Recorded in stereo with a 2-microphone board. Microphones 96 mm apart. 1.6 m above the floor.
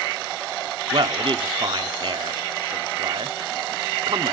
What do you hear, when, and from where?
0.9 s a man speaking: 60° right (ahead or behind), 0.6 m